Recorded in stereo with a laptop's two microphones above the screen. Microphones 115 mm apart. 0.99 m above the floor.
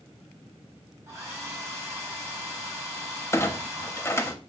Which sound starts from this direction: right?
A hair dryer, at 1.1 s.